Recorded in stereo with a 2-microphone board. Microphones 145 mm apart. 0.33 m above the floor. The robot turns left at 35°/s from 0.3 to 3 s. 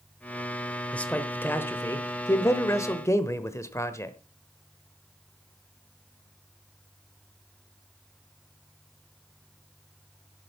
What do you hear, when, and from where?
0.9 s a man speaking: 10° left (ahead or behind), 1.0 m; by 4.2 s 20° left (ahead or behind), 1.0 m